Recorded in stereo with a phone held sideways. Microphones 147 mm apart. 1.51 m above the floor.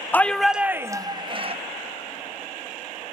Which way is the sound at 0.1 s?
15° left (ahead or behind).